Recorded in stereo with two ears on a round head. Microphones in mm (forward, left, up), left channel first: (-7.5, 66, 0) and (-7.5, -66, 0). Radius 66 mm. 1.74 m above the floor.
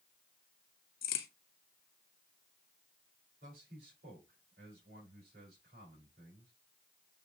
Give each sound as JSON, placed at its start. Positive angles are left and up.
{"t": 1.0, "sound": "a crack", "side_deg": 70, "distance_m": 1.2}
{"t": 3.4, "sound": "a man speaking", "side_deg": -70, "distance_m": 4.5}